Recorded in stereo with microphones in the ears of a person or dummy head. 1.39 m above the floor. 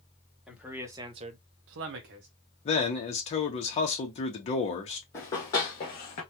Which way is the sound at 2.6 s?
40° left (ahead or behind).